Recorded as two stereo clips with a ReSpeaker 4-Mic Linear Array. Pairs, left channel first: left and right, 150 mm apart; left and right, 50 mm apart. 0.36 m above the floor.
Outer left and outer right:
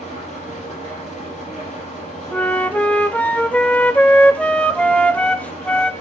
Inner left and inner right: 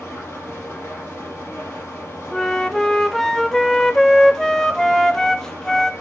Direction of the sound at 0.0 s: 50° left (ahead or behind).